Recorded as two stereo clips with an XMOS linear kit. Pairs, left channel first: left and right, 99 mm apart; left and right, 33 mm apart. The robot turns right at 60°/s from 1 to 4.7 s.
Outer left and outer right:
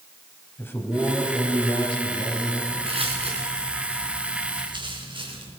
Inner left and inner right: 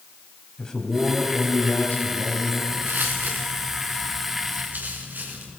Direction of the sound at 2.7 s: 65° right (ahead or behind).